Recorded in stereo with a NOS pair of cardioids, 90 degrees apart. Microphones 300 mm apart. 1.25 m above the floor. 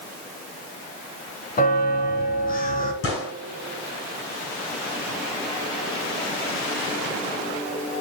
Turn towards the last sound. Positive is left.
turn(degrees=45)